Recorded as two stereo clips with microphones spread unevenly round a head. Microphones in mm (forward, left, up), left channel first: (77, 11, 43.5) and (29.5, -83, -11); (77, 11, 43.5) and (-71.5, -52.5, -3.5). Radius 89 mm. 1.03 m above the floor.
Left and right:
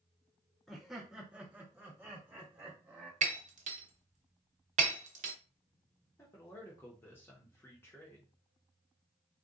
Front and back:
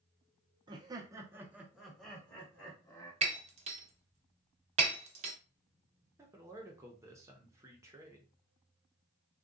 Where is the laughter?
170° right, 0.7 m; by 3.1 s 60° right, 1.3 m.